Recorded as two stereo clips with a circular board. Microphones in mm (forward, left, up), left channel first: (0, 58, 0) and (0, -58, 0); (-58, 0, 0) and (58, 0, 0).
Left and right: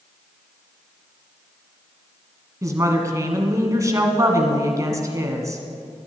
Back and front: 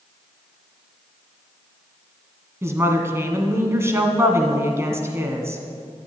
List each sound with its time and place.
2.6 s a woman speaking: 50° right, 1.6 m